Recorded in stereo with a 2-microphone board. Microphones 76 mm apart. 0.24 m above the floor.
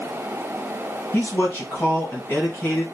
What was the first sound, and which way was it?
A man speaking, 30° left (ahead or behind).